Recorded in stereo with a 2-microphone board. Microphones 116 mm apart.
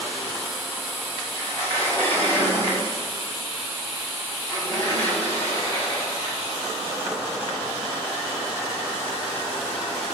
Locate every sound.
1.4 s a sliding door: 20° left (ahead or behind), 5 m